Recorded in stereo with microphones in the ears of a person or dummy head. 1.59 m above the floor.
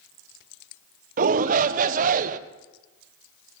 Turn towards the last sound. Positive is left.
turn(degrees=-45)  # may be behind; listen again after turning